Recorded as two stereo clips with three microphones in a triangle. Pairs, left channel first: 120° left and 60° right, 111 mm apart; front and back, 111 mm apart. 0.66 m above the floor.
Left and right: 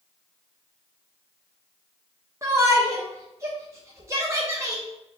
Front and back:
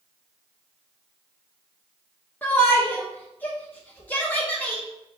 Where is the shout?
55° right, 0.6 m.